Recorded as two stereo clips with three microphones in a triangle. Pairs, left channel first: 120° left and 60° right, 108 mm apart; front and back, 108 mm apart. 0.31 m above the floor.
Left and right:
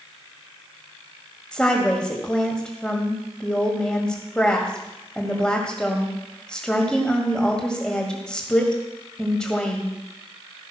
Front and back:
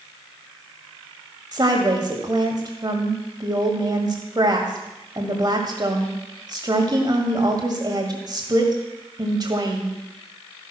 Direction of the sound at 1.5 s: 160° right.